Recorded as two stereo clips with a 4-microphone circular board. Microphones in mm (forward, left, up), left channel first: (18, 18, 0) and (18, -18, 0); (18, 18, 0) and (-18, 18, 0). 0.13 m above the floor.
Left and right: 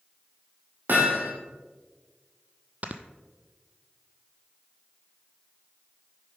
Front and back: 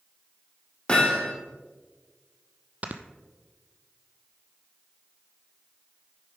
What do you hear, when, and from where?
0.9 s hammering: 65° right, 3.5 m
2.8 s snoring: 135° right, 0.8 m